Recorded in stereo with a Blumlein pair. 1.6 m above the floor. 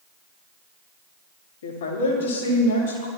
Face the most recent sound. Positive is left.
turn(degrees=65)